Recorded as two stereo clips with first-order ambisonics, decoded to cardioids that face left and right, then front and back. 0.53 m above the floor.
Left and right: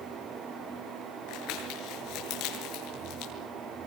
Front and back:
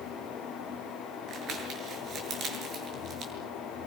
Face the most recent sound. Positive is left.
turn(degrees=125)